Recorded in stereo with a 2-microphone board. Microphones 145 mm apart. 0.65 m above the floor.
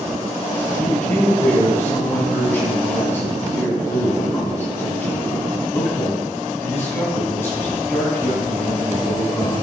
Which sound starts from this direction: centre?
A man speaking, at 0.8 s.